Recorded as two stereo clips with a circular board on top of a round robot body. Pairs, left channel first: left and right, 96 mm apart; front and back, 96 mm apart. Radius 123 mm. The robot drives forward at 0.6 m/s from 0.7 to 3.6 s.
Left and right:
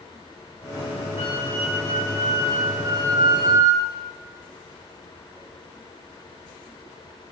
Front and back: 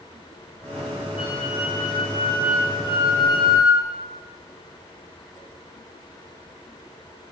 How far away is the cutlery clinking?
I don't hear cutlery clinking.